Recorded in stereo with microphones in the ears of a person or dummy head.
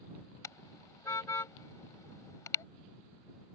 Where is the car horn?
20° left (ahead or behind).